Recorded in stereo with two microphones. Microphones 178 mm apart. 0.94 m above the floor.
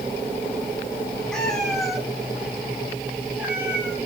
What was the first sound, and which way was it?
A cat meowing, 5° left (ahead or behind).